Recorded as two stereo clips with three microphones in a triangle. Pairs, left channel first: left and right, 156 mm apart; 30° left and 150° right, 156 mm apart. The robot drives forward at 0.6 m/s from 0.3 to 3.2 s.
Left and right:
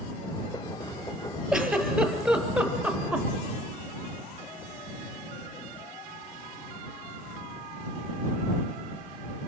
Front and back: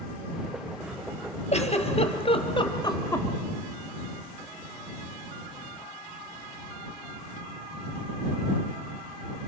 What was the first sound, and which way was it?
A giggle, 5° right.